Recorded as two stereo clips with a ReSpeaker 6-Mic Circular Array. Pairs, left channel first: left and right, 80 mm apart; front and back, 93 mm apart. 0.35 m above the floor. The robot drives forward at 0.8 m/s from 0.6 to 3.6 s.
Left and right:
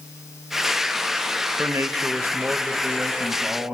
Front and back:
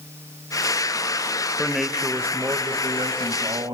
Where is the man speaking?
70° right, 0.9 m; by 3.8 s 160° right, 1.7 m.